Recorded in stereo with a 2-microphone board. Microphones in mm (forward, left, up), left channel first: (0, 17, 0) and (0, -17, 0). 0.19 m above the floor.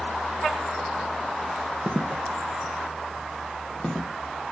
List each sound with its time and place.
1.9 s footsteps: 35° right (ahead or behind), 0.6 m; by 4.1 s 15° left (ahead or behind), 1.7 m